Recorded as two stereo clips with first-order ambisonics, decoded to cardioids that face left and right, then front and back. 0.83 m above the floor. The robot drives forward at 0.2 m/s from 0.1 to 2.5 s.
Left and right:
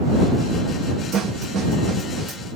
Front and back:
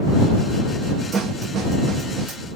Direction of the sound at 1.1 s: 130° right.